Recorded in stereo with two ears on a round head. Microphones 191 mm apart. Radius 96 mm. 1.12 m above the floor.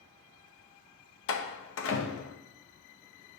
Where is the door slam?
60° left (ahead or behind), 0.6 m.